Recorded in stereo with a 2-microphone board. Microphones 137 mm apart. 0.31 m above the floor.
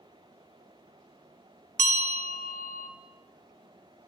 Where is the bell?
60° right (ahead or behind), 0.6 m.